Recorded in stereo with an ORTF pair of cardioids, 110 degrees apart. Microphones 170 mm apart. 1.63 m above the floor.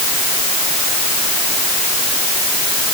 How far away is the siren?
I don't hear a siren.